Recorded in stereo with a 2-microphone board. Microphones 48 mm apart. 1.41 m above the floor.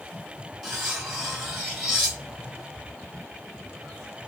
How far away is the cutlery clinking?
About 1.4 m.